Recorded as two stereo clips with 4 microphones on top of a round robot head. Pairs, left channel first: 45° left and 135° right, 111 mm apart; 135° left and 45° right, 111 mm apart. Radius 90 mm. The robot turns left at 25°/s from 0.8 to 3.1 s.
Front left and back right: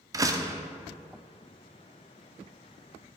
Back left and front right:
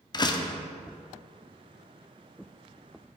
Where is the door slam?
175° left, 0.7 m.